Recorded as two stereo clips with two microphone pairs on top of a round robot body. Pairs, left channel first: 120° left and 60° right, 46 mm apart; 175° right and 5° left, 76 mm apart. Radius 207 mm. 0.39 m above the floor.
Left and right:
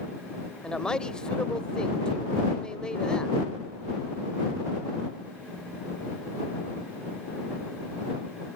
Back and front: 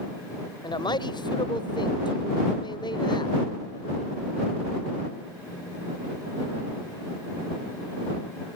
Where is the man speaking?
165° right.